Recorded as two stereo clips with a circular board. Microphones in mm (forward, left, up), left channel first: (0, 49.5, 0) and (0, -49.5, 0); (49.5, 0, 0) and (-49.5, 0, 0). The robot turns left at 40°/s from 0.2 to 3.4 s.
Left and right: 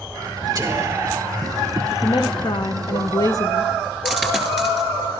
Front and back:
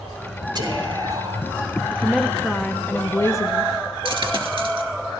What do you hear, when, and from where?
0.6 s whispering: 140° right, 2.5 m; by 1.5 s 175° right, 2.5 m
1.9 s a woman speaking: 110° left, 0.5 m; by 3.7 s 50° left, 0.5 m
4.0 s a dropped coin: 175° left, 1.9 m